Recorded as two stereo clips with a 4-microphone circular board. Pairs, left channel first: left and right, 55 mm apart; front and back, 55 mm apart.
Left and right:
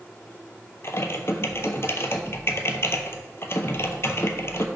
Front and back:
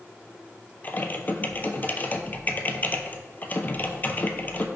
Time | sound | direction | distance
0.8 | typing on a keyboard | 55° left | 0.6 m